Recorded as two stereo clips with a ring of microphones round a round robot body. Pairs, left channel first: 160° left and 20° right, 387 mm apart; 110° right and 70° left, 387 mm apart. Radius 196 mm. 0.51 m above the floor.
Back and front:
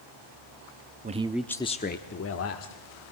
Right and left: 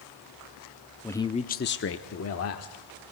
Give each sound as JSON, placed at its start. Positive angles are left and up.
{"t": 1.0, "sound": "a man speaking", "azimuth_deg": -35, "distance_m": 0.7}